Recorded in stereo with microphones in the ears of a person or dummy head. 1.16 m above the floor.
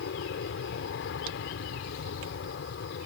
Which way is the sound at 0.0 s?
65° left (ahead or behind).